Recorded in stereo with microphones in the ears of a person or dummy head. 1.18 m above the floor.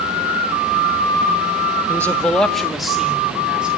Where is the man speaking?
15° left (ahead or behind), 1.0 m; by 3.7 s 5° right (ahead or behind), 3.5 m.